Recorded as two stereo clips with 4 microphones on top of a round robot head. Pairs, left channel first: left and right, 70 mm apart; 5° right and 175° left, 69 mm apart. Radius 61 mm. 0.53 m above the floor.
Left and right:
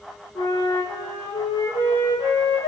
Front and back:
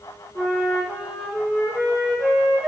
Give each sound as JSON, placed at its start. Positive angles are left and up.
{"t": 0.3, "sound": "a flute", "azimuth_deg": 95, "distance_m": 8.0}